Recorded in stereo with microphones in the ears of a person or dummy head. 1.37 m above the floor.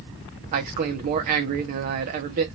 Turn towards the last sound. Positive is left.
turn(degrees=-50)  # may be behind; listen again after turning